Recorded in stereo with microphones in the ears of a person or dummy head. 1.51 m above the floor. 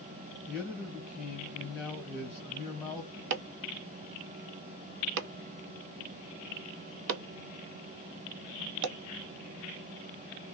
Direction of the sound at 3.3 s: 65° right (ahead or behind).